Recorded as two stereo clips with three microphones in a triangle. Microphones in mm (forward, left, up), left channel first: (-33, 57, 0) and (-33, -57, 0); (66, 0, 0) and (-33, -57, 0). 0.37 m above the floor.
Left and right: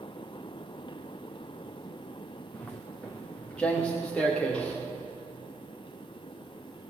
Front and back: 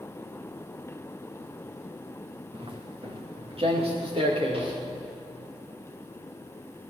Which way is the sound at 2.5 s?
170° left.